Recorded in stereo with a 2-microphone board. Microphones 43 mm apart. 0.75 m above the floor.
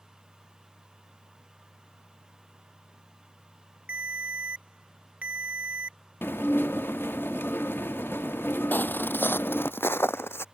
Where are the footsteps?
40° left (ahead or behind); by 10.4 s 65° left (ahead or behind).